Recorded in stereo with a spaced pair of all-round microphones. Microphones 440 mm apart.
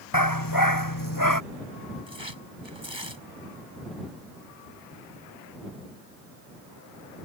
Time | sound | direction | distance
0.1 | a dog barking | 50° left (ahead or behind) | ?
2.1 | tearing paper | 80° right | ?